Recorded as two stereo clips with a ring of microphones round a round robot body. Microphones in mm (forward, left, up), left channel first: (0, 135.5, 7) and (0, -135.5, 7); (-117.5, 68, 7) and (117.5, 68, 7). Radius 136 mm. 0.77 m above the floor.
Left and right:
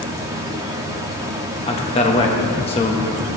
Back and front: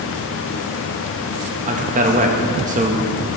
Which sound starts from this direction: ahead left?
A man speaking, at 1.7 s.